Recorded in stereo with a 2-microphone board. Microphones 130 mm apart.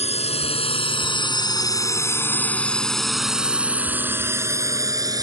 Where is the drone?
55° left (ahead or behind); by 5.2 s 30° right (ahead or behind).